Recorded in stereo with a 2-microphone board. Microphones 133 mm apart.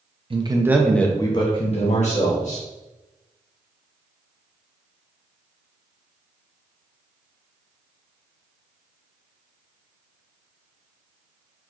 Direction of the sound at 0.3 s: 40° right (ahead or behind).